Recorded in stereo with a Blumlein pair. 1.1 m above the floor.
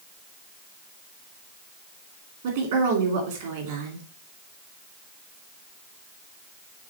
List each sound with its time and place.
2.4 s a woman speaking: 55° right, 2.5 m